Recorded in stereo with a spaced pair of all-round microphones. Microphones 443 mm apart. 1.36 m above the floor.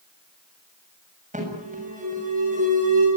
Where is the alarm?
15° right (ahead or behind), 7.5 m.